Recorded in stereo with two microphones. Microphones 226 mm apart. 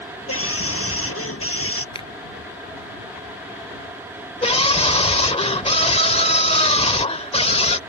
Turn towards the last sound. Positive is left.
turn(degrees=25)  # may be behind; listen again after turning